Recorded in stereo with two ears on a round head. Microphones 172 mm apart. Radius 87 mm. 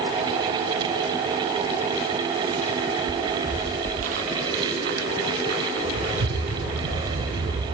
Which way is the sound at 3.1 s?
20° right (ahead or behind).